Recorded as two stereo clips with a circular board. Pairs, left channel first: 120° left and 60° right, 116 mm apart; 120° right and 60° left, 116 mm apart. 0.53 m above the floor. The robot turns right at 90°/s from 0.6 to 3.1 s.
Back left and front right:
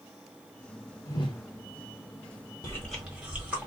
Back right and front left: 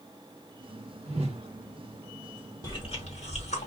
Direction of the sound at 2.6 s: Straight behind.